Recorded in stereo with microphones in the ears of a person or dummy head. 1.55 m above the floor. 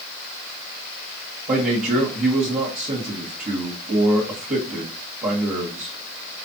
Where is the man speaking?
35° right (ahead or behind), 1.6 m.